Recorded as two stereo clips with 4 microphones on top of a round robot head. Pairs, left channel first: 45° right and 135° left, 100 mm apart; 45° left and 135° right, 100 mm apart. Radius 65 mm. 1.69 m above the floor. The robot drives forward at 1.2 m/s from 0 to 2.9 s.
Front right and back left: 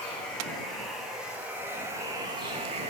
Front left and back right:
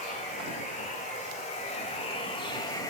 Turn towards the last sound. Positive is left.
turn(degrees=105)